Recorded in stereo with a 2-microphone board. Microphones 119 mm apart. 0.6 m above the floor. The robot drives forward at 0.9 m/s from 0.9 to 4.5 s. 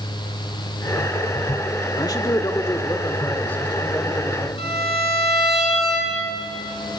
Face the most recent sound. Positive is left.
turn(degrees=60)  # may be behind; listen again after turning